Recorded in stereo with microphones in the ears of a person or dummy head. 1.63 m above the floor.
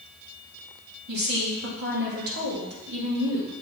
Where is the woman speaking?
60° right (ahead or behind), 2.5 m.